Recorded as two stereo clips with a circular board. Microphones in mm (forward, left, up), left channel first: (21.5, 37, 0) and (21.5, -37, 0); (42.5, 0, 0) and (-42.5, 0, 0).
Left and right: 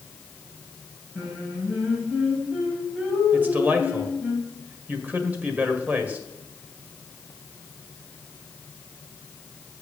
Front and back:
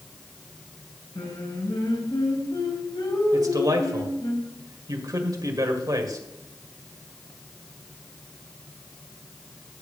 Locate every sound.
1.1 s singing: 10° right, 3.5 m
3.3 s a man speaking: 150° right, 1.8 m